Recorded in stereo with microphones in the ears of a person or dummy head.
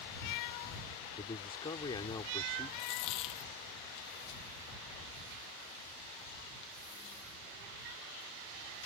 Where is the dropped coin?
30° left (ahead or behind).